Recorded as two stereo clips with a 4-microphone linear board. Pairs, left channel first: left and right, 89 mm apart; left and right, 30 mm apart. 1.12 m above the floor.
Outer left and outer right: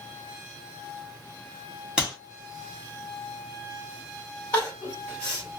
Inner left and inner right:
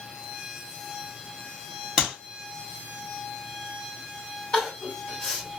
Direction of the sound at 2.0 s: 10° right (ahead or behind).